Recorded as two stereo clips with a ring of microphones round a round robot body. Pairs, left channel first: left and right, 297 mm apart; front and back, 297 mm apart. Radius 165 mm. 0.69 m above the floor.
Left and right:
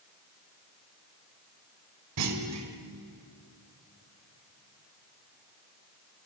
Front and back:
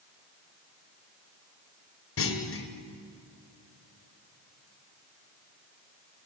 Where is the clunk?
45° right, 2 m.